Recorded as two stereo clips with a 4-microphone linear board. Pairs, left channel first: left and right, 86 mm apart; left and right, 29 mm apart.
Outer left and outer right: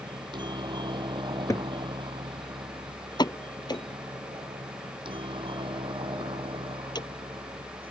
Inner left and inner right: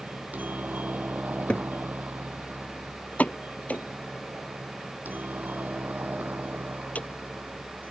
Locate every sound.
0.0 s a helicopter: 55° right (ahead or behind); by 7.9 s 70° right (ahead or behind)
1.5 s a cupboard door: 40° left (ahead or behind)
3.2 s a pop: 55° left (ahead or behind)